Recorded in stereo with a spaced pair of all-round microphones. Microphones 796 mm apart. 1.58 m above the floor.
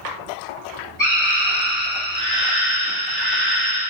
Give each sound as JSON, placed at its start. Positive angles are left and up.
{"t": 1.0, "sound": "a scream", "side_deg": -10, "distance_m": 2.5}